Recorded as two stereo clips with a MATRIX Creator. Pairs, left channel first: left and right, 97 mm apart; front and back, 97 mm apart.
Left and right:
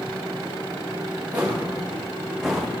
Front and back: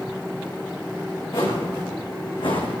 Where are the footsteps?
20° right, 4.5 m; by 2.8 s straight ahead, 3 m.